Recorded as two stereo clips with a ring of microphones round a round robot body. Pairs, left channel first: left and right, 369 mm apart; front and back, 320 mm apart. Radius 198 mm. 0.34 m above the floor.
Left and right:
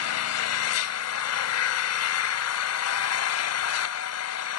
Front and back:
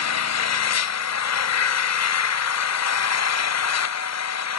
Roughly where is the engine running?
Ahead left.